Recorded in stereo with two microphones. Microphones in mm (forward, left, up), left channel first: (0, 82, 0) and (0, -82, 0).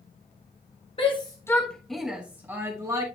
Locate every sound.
1.0 s a shout: 35° left (ahead or behind), 1.2 m; by 3.0 s 20° right (ahead or behind), 2.5 m